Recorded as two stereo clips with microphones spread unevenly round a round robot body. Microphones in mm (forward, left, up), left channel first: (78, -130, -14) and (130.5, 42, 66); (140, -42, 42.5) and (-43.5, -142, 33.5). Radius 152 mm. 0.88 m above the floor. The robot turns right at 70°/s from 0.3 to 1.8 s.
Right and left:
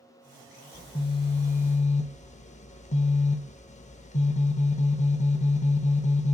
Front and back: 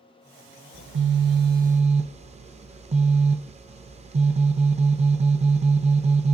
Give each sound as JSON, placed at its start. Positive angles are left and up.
{"t": 0.7, "sound": "a phone buzzing", "azimuth_deg": -170, "distance_m": 0.6}